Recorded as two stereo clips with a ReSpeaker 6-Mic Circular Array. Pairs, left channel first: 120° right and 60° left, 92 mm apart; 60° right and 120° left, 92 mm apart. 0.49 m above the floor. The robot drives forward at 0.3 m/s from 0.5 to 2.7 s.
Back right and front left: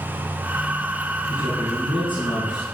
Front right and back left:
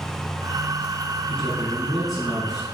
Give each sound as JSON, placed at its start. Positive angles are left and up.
{"t": 1.3, "sound": "a man speaking", "azimuth_deg": -145, "distance_m": 5.0}